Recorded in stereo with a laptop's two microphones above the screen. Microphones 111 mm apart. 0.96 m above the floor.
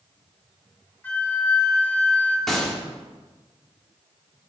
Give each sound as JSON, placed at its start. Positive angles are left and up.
{"t": 1.0, "sound": "a flute", "side_deg": 15, "distance_m": 0.9}
{"t": 2.5, "sound": "a gunshot", "side_deg": 5, "distance_m": 1.8}